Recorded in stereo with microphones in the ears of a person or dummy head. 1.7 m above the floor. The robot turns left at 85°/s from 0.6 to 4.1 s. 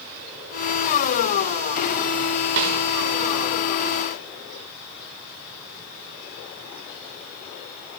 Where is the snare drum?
65° right (ahead or behind), 5 m; by 2.8 s 85° right, 5 m.